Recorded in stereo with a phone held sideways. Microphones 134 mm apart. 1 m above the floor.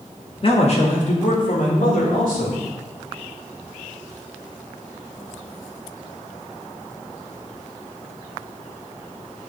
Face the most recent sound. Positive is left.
turn(degrees=80)